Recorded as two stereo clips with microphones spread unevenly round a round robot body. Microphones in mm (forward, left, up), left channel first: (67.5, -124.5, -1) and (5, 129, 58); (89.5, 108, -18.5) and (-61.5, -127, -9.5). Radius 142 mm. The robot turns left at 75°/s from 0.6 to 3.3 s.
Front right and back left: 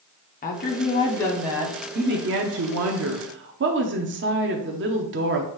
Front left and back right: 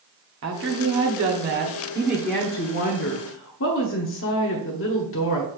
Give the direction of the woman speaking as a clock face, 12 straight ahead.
3 o'clock.